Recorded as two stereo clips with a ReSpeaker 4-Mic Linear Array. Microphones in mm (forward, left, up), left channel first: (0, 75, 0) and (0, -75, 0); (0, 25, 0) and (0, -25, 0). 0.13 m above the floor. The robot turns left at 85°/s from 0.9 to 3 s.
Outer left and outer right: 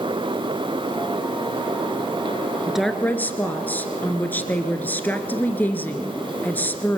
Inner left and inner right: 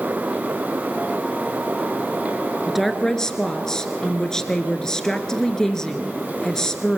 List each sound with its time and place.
2.7 s a woman speaking: 10° right (ahead or behind), 1.6 m; by 7.0 s 15° left (ahead or behind), 1.6 m